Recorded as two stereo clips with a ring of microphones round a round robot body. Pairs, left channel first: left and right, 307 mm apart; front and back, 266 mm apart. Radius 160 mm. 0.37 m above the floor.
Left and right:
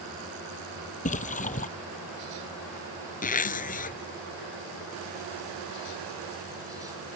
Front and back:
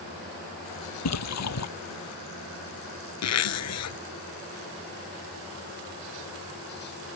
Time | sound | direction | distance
1.1 | a splash | 25° left | ?
3.2 | a zipper | 25° left | ?